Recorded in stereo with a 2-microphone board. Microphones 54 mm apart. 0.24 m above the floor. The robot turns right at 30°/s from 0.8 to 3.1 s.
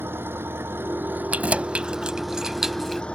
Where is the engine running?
50° right; by 3.2 s 20° left.